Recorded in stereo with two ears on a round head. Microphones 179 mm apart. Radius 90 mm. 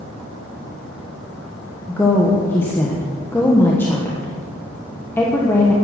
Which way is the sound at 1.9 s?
10° left (ahead or behind).